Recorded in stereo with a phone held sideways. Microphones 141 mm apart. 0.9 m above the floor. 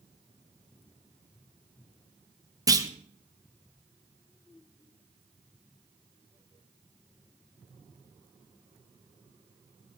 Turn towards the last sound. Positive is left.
turn(degrees=-25)  # may be behind; listen again after turning